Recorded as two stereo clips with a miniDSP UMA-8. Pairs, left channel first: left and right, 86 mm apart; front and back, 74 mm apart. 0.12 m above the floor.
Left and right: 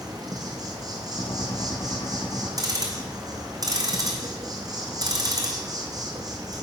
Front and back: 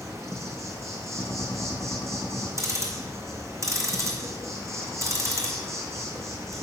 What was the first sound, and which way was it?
An insect, 135° right.